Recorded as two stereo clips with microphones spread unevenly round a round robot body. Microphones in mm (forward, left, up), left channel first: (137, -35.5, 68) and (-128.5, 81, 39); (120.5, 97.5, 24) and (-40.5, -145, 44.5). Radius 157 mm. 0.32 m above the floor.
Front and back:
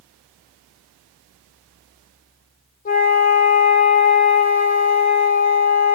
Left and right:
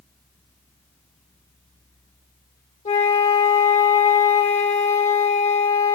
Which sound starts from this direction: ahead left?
A flute, at 2.9 s.